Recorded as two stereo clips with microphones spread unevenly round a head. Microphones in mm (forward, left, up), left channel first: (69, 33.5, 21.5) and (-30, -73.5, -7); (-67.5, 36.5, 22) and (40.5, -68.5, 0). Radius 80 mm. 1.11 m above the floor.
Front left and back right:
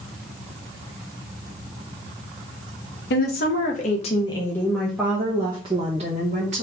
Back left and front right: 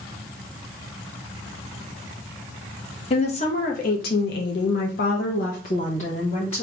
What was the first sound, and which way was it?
A woman speaking, 80° left.